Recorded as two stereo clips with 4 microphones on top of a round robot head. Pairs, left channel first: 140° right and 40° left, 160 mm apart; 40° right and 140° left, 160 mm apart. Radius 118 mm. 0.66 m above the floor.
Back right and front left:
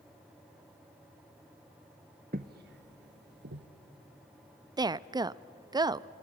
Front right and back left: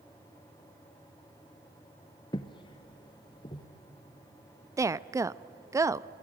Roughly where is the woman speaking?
Left.